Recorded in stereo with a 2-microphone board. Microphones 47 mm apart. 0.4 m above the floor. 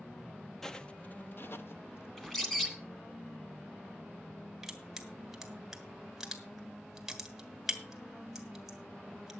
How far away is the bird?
About 2 m.